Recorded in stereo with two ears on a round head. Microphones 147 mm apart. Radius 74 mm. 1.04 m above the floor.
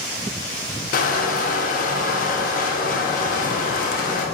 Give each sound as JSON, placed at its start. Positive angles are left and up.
{"t": 0.9, "sound": "crushing", "side_deg": 55, "distance_m": 0.5}